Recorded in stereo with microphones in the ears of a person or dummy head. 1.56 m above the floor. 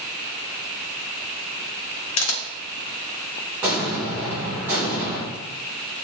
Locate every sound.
2.2 s a camera shutter: 80° left, 0.6 m
3.6 s an explosion: 15° right (ahead or behind), 1.1 m